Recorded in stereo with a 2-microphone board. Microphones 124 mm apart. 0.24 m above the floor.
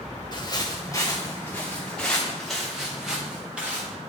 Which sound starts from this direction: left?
Footsteps, at 0.3 s.